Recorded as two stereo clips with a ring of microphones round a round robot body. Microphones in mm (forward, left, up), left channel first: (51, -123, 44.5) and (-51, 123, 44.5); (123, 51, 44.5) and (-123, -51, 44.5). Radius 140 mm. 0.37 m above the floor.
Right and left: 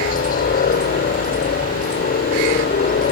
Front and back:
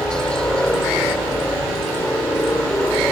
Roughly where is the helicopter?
Ahead right.